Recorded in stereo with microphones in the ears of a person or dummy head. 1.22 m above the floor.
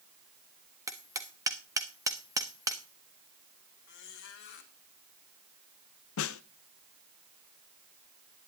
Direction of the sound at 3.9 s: 60° left (ahead or behind).